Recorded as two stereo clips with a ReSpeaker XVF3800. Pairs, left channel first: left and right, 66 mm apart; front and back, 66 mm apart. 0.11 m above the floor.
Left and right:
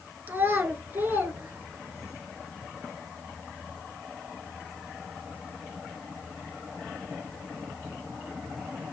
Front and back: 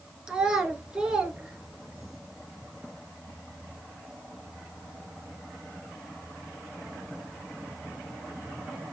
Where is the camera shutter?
I don't hear a camera shutter.